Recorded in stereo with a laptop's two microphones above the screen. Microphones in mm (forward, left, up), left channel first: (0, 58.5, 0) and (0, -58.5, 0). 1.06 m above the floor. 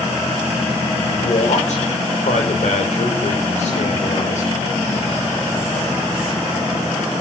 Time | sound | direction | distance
1.1 | a man speaking | 75° left (ahead or behind) | 5 m